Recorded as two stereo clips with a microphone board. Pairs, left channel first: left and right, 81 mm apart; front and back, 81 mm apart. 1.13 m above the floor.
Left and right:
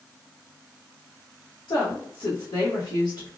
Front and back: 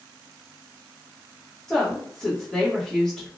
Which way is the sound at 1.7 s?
85° left.